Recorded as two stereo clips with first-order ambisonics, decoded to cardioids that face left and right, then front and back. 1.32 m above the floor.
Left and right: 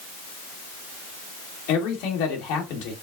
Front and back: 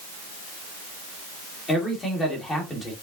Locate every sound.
1.7 s a man speaking: 80° left, 2 m